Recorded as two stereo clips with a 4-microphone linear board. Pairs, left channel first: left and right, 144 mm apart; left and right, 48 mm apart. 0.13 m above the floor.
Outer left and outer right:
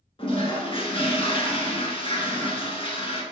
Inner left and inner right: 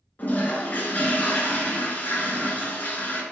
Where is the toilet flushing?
40° left (ahead or behind), 1.3 m.